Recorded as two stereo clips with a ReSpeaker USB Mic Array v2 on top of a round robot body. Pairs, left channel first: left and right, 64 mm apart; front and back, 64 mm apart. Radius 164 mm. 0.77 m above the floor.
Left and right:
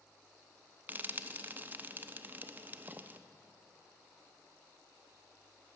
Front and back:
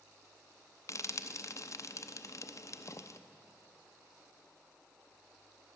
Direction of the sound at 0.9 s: 30° right.